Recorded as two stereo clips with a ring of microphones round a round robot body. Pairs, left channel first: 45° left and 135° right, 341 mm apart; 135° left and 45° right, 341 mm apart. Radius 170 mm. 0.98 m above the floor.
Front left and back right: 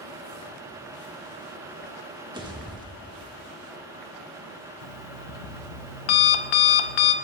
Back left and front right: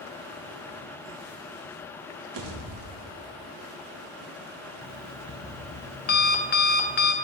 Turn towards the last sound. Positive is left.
turn(degrees=70)